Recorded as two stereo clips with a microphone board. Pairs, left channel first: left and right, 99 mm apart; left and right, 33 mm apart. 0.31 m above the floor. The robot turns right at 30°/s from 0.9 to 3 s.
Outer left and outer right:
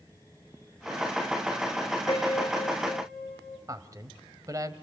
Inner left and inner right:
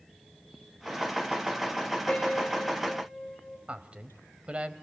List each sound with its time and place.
2.1 s a piano: 40° left (ahead or behind), 5 m; by 3.6 s 10° left (ahead or behind), 5 m
3.7 s a man speaking: 35° right (ahead or behind), 1.7 m